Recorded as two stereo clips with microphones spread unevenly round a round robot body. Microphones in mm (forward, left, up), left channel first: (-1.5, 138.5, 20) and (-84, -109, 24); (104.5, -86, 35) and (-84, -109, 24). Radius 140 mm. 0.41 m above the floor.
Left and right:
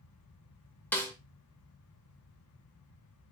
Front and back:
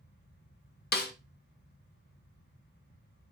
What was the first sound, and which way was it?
A snare drum, 10° right.